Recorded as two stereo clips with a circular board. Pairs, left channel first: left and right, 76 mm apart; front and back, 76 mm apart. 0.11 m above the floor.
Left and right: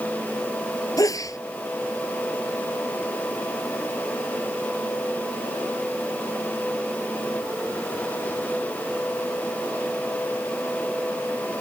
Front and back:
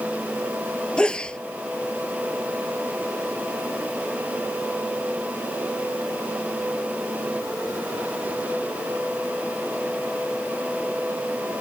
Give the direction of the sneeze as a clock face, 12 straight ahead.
10 o'clock.